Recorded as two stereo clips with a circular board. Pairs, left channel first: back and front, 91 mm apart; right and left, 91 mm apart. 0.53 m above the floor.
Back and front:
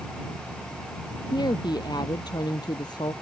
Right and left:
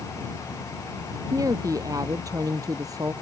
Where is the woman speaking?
140° left.